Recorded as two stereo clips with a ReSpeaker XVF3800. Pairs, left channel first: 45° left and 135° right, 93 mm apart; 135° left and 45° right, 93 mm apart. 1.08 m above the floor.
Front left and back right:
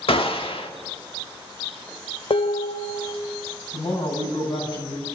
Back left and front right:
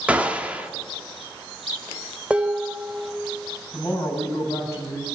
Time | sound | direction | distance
0.1 | a gunshot | 30° left | 1.8 m
2.3 | dishes clattering | 30° left | 1.1 m
3.7 | a woman speaking | 70° left | 8 m